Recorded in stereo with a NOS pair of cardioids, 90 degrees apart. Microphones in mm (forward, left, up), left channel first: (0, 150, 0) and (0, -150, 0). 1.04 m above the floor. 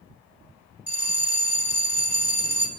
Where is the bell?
5° right, 1.8 m.